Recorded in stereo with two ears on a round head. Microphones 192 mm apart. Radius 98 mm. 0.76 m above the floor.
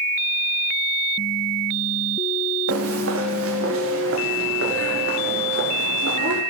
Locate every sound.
2.7 s footsteps: 70° right (ahead or behind), 5 m; by 6.4 s 55° right (ahead or behind), 9 m